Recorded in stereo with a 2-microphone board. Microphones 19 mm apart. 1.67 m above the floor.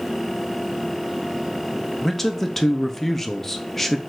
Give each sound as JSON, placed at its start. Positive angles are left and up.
{"t": 2.0, "sound": "a man speaking", "side_deg": 15, "distance_m": 0.6}